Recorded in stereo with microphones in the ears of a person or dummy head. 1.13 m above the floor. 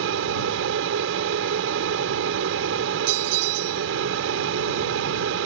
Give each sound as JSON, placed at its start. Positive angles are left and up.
{"t": 0.0, "sound": "an aircraft", "side_deg": -70}
{"t": 3.1, "sound": "a bell", "side_deg": -55}